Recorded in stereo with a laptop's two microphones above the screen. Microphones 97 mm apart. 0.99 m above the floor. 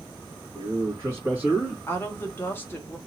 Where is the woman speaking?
20° left (ahead or behind), 1.2 m.